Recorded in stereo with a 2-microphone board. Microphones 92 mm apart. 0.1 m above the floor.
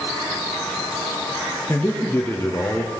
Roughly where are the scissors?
No scissors in this recording.